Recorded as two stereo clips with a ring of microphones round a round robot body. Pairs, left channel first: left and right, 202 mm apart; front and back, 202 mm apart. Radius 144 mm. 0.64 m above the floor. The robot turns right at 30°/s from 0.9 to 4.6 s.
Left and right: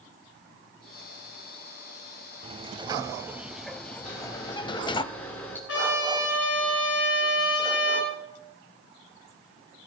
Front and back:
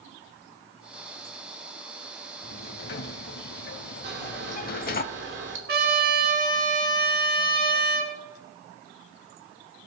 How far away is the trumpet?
About 3.5 m.